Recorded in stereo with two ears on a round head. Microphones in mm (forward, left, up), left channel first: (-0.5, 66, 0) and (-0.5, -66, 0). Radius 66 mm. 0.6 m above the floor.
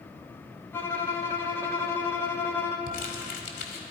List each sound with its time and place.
0.7 s a violin: 15° left (ahead or behind), 1.1 m
2.9 s crumpling: 60° left (ahead or behind), 1.6 m